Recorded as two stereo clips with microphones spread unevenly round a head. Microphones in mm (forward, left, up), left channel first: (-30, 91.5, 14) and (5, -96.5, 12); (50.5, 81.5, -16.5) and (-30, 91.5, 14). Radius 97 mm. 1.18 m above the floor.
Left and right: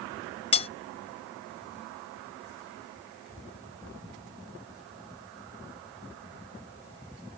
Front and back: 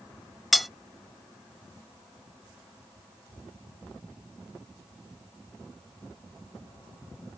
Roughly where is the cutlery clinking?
Behind left.